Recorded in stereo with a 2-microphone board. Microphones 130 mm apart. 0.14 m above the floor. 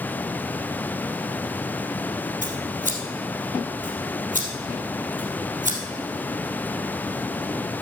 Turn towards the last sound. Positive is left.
turn(degrees=-70)  # may be behind; listen again after turning